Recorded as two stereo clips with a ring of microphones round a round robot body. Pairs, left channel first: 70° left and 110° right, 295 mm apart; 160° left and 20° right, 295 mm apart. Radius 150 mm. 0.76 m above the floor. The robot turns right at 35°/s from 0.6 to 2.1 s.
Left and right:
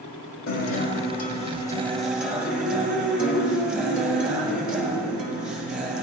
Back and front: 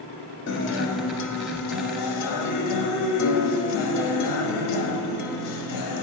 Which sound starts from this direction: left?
A guitar, at 0.5 s.